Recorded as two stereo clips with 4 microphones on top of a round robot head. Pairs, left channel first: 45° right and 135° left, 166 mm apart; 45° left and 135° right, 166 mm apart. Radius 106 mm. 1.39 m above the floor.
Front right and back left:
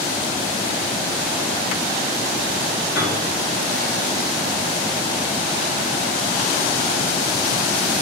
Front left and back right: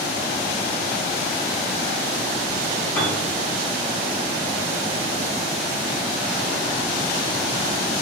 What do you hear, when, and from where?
3.0 s a piano: 10° right, 3 m